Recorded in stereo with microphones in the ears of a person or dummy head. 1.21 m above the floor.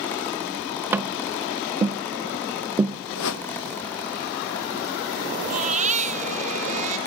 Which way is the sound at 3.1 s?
80° left.